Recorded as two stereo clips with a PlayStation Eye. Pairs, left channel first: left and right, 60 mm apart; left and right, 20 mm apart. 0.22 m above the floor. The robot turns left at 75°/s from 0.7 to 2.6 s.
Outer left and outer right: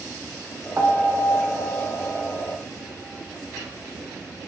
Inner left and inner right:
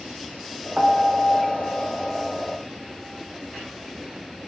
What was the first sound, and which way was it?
A piano, 35° right.